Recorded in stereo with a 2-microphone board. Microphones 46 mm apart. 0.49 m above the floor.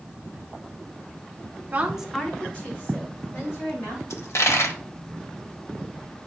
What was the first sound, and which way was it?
A woman speaking, 30° right (ahead or behind).